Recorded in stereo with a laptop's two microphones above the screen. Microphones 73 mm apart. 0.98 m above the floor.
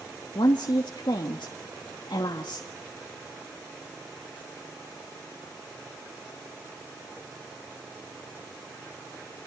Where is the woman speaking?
75° left (ahead or behind), 1.3 m.